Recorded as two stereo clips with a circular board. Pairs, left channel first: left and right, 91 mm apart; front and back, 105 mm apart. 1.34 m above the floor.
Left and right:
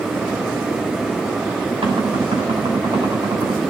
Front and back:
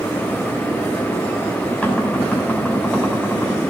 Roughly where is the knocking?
Right.